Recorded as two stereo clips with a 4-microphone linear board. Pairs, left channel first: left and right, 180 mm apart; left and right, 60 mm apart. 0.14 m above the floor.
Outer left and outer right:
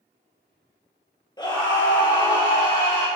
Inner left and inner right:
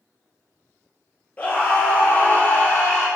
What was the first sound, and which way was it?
A scream, 25° left (ahead or behind).